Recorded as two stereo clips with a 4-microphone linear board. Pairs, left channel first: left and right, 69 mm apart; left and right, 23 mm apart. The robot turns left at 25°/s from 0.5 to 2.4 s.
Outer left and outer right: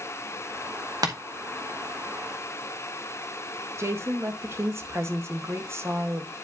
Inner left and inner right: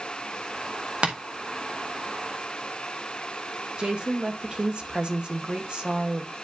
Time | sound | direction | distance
1.0 | tapping | 65° right (ahead or behind) | 1.3 m
3.8 | a woman speaking | 40° right (ahead or behind) | 1.4 m